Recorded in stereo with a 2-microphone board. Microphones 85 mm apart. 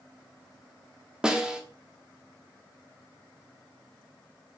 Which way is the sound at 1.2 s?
10° right (ahead or behind).